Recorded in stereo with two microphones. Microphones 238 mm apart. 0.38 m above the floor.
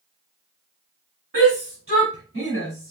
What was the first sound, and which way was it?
A shout, 70° right (ahead or behind).